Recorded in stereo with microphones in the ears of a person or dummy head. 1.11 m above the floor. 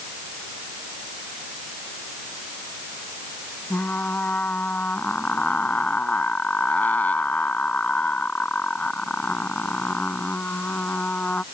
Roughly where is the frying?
Centre.